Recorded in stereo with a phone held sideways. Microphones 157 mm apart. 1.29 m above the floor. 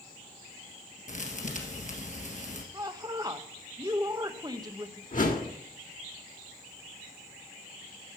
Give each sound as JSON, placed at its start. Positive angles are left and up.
{"t": 1.1, "sound": "a thud", "side_deg": 50, "distance_m": 2.0}
{"t": 2.7, "sound": "a woman speaking", "side_deg": -25, "distance_m": 1.0}
{"t": 5.1, "sound": "a whoosh", "side_deg": 55, "distance_m": 1.6}